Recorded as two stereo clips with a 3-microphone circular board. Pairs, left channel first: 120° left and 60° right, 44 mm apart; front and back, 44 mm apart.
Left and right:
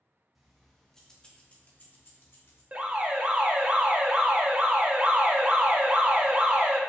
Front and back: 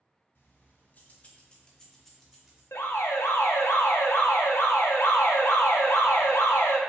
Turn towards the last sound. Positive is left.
turn(degrees=5)